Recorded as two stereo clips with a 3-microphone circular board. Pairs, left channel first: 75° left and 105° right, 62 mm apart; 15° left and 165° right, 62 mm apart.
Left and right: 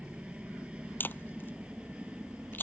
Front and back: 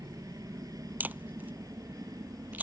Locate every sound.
0.0 s a helicopter: straight behind
1.0 s a camera shutter: 130° left